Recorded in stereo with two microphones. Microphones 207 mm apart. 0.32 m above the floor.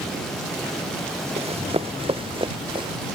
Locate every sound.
1.4 s running footsteps: 30° right (ahead or behind); by 2.9 s 25° right (ahead or behind)